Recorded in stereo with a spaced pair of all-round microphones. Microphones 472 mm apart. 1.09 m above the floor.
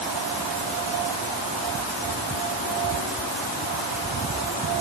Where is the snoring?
I don't hear snoring.